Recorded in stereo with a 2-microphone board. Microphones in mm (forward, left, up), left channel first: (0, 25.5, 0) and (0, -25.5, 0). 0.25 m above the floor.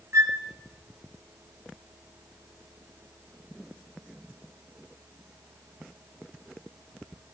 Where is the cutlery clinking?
No cutlery clinking in this recording.